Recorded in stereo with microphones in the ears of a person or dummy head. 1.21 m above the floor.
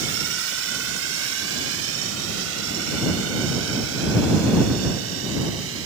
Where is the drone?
75° right (ahead or behind); by 5.9 s 80° right.